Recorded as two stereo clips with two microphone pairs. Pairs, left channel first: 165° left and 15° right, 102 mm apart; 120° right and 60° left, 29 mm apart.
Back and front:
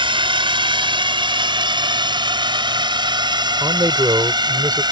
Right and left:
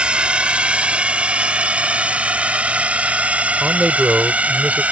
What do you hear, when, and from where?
0.0 s a drone: 10° left; by 4.9 s 25° left
3.6 s a man speaking: 30° left